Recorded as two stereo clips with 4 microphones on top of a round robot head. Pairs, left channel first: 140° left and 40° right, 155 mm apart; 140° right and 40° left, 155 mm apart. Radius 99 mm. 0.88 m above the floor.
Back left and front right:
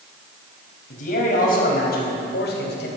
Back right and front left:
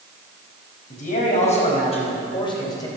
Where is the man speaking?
Straight behind, 4.5 m; by 2.9 s 150° left, 3 m.